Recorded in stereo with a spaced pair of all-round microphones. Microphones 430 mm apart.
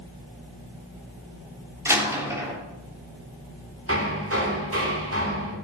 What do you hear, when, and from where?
1.9 s a door slam: 5° right (ahead or behind), 3 m
3.9 s hammering: 30° right (ahead or behind), 3 m